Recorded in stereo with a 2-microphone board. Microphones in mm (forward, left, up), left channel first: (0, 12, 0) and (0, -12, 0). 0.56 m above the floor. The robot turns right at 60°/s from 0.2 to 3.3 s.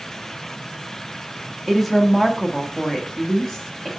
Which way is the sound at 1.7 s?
Centre (ahead or behind).